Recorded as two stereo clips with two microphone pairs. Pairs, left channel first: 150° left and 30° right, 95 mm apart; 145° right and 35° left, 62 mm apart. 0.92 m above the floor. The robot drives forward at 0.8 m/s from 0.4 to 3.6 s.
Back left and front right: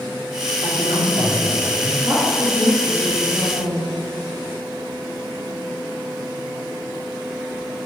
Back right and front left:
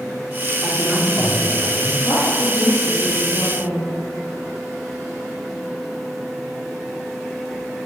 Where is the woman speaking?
75° right, 2 m; by 3.9 s 110° right, 2 m.